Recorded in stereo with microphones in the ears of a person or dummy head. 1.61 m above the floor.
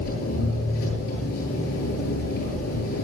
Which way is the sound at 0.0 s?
80° left.